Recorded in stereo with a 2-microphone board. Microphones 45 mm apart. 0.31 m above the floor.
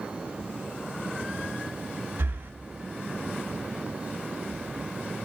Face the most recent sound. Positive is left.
turn(degrees=-65)  # may be behind; listen again after turning